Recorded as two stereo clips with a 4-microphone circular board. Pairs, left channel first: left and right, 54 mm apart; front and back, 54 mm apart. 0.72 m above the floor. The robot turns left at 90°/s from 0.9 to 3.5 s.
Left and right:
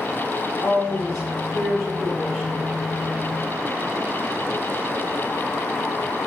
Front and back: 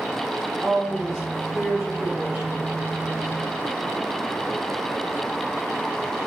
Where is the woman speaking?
95° left, 1.8 m; by 2.7 s 70° right, 1.8 m.